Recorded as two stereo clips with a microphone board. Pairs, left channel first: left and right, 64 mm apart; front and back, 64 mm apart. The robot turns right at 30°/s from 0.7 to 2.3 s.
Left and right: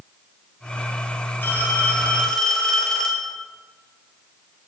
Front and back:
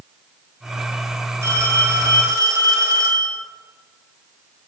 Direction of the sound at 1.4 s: 145° left.